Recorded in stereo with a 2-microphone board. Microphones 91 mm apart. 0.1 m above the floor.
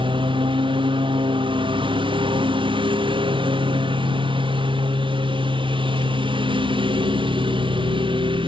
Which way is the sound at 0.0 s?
65° right (ahead or behind).